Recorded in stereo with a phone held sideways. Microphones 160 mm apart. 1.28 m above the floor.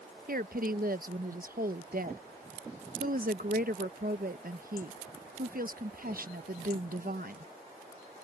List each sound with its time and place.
0.3 s a woman speaking: 65° right (ahead or behind)